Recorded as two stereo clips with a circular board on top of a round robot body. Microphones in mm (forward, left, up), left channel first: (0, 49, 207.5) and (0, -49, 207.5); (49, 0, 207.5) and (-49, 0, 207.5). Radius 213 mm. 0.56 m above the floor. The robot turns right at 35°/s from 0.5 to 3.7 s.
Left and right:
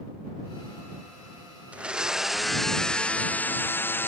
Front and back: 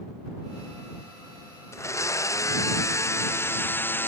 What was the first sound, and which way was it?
A blender, 25° right.